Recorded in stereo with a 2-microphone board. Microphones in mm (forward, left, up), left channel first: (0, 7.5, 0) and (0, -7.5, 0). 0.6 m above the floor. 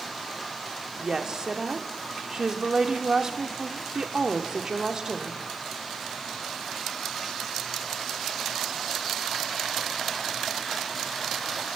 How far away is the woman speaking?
About 1.0 m.